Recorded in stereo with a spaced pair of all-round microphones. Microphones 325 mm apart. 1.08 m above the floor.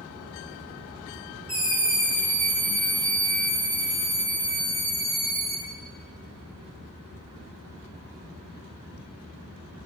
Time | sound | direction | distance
1.5 | a scream | 40° right (ahead or behind) | 2.5 m